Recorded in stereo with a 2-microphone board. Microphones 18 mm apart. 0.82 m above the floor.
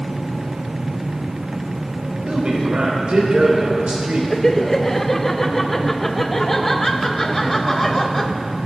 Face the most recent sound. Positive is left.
turn(degrees=15)  # may be behind; listen again after turning